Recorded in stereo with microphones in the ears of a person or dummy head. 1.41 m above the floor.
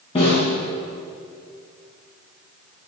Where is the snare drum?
40° left (ahead or behind), 3.5 m.